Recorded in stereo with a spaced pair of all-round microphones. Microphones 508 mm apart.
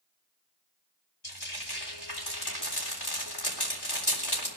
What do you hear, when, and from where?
1.2 s frying: 50° left (ahead or behind), 3.5 m